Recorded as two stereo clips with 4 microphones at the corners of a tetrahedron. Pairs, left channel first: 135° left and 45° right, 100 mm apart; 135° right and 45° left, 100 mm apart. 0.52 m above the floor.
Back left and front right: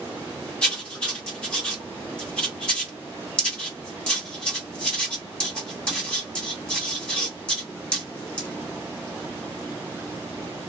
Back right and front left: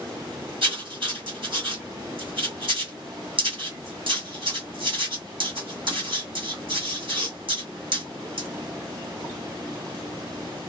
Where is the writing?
60° left, 1.8 m.